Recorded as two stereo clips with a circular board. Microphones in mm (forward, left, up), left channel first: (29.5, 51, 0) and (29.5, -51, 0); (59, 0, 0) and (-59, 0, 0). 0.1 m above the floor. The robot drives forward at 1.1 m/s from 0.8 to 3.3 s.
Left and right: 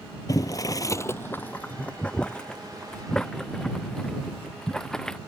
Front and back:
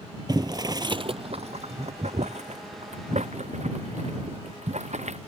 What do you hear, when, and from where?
0.3 s boiling: 135° left; by 5.2 s 170° left